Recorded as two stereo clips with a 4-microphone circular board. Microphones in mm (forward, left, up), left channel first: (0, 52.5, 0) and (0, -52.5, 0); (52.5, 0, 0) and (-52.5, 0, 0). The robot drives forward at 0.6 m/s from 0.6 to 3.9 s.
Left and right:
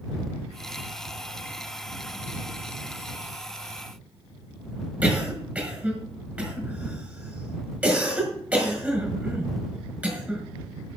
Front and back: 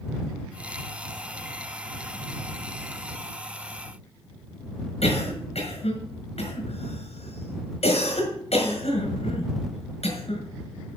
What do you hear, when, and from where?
5.0 s a cough: 15° right, 5.5 m